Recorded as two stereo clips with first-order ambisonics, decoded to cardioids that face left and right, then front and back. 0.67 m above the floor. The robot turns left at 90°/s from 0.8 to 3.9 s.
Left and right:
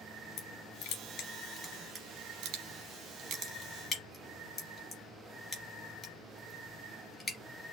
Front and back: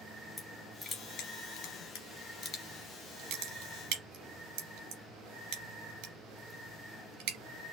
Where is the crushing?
85° left, 2.5 m; by 7.4 s 165° left, 2.5 m.